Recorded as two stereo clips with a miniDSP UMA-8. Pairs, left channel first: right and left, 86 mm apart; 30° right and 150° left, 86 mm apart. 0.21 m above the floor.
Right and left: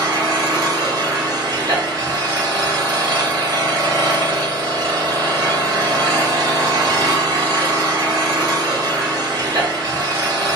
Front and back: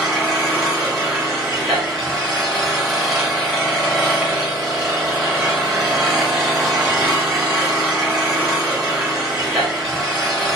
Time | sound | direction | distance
0.0 | an engine running | 65° left | 1.4 m